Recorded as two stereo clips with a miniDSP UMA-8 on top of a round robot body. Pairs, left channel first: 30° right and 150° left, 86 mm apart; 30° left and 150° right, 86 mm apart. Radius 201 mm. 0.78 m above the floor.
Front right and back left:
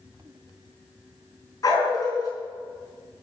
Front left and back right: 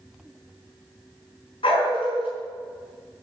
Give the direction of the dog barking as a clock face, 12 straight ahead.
11 o'clock.